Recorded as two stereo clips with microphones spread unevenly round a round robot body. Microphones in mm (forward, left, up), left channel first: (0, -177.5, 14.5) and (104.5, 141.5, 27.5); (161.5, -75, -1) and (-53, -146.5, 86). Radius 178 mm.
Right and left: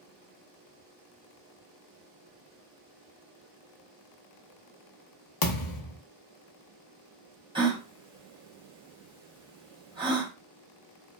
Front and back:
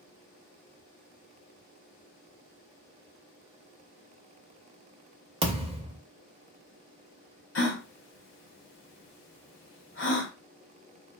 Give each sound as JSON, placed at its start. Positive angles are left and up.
{"t": 5.4, "sound": "a thud", "azimuth_deg": -125, "distance_m": 0.6}
{"t": 7.5, "sound": "a gasp", "azimuth_deg": -5, "distance_m": 0.9}